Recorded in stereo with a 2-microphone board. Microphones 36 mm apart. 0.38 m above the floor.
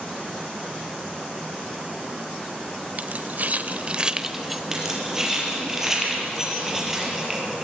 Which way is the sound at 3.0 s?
50° right (ahead or behind).